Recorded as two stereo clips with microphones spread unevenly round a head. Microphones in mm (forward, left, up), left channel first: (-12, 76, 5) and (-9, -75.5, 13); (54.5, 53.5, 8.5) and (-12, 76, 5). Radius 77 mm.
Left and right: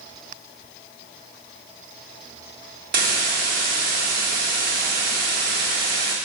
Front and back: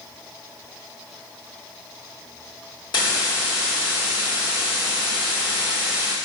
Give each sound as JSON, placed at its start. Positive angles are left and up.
{"t": 2.9, "sound": "a hiss", "azimuth_deg": -60, "distance_m": 1.8}